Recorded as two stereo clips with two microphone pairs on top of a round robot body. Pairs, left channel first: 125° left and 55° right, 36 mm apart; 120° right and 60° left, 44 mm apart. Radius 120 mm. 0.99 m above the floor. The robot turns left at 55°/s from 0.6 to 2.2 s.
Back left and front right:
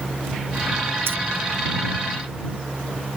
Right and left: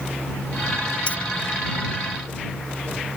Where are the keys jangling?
60° right; by 1.2 s 65° right.